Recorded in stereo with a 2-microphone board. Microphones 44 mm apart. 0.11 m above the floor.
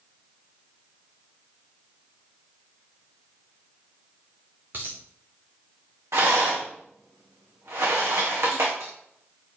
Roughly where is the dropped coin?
Right.